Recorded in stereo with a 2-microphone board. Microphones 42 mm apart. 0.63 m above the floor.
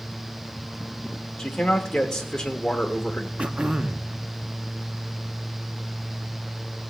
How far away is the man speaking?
About 1.4 m.